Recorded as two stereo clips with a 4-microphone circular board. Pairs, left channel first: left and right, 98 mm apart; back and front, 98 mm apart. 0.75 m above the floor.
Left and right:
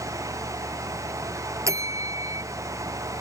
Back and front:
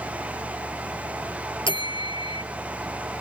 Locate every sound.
1.7 s a bell: 145° right